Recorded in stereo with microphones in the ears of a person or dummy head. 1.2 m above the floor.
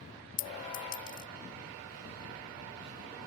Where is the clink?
65° left (ahead or behind).